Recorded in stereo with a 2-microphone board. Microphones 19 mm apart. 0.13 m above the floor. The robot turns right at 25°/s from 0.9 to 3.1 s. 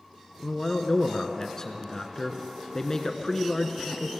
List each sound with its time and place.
0.4 s a man speaking: 65° left, 1.2 m; by 4.1 s 120° left, 1.2 m